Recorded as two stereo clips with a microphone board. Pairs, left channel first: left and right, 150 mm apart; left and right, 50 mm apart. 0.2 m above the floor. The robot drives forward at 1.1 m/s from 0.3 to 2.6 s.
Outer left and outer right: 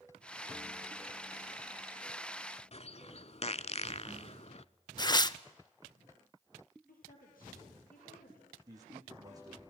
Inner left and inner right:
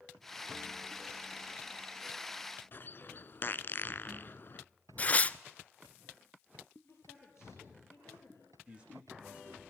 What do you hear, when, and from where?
2.7 s a bird: 45° left (ahead or behind), 0.5 m
5.0 s tearing paper: 30° left (ahead or behind), 0.5 m
6.9 s a woman speaking: 70° left (ahead or behind), 4.5 m
8.7 s a man speaking: 25° right (ahead or behind), 9.5 m